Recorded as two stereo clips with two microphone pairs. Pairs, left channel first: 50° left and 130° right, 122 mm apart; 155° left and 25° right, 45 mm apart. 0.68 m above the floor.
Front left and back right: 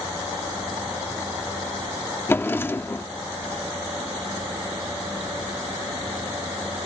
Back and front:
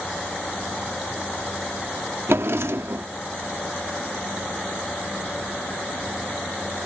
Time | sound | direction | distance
2.3 | a drawer | 15° right | ?